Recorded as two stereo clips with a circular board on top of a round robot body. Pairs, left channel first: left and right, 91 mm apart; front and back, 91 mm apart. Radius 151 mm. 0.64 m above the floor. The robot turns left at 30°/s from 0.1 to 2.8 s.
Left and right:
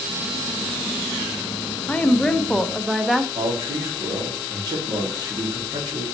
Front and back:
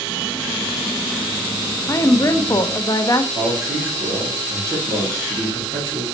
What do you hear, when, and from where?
1.9 s a woman speaking: 25° left, 0.7 m; by 3.2 s straight ahead, 0.7 m
3.4 s a man speaking: 130° right, 2 m